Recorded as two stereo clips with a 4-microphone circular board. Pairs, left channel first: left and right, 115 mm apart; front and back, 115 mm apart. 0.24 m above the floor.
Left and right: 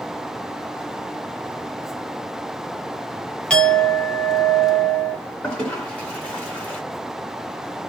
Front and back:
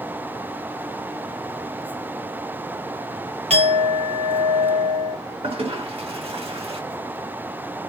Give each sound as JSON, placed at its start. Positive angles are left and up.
{"t": 3.5, "sound": "a clink", "azimuth_deg": 170, "distance_m": 2.0}
{"t": 5.4, "sound": "a toilet flushing", "azimuth_deg": 170, "distance_m": 3.0}